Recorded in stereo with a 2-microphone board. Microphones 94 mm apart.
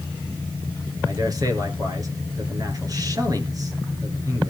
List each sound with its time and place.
1.1 s a man speaking: 40° right (ahead or behind), 3 m